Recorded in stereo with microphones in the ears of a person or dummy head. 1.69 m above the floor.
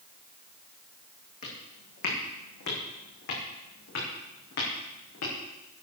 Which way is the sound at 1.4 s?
50° left (ahead or behind).